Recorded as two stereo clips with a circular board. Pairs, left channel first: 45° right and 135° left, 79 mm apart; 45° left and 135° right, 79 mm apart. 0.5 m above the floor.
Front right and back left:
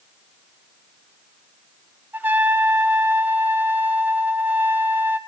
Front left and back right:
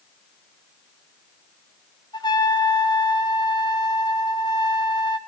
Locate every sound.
2.1 s a trumpet: 70° left, 1.0 m